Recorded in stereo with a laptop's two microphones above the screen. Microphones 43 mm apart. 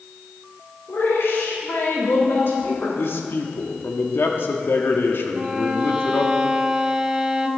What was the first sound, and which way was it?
A woman speaking, 70° left (ahead or behind).